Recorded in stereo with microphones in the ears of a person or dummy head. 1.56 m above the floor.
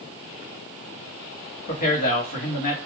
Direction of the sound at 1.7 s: 40° left (ahead or behind).